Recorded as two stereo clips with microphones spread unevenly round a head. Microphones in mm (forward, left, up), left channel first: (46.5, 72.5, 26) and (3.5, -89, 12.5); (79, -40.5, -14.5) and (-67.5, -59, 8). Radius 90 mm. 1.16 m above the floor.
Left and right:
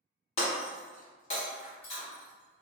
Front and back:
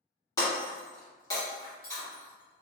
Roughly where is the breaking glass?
Left.